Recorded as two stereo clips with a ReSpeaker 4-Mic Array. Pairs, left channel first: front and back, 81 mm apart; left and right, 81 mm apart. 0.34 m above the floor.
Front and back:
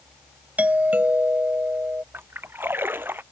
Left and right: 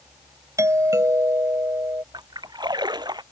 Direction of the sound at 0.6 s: 120° right.